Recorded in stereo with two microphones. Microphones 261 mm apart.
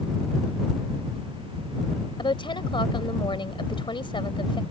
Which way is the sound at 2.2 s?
20° left (ahead or behind).